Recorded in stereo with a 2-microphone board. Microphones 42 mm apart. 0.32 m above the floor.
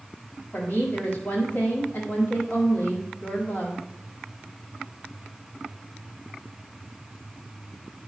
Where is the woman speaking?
45° left (ahead or behind), 1.7 m.